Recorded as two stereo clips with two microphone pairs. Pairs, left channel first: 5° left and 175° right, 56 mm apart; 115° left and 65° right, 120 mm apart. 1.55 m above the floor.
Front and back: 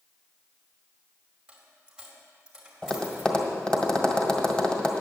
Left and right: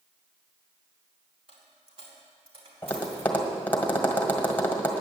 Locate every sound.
1.5 s a dropped coin: 95° right, 2.5 m
2.8 s tapping: 55° left, 1.5 m